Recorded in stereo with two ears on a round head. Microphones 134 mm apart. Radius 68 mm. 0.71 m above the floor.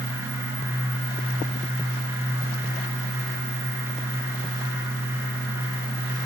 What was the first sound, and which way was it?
Only background noise.